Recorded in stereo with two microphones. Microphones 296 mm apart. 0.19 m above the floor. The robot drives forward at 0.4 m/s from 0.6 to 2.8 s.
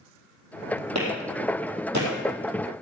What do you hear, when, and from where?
0.9 s a clap: 60° right (ahead or behind), 4.5 m; by 2.1 s 65° right (ahead or behind), 4.5 m